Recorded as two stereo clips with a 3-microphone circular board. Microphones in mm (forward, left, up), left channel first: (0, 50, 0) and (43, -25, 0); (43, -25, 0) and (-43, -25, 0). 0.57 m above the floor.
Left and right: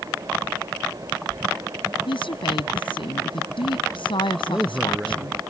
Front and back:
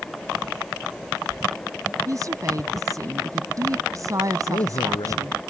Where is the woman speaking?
130° left.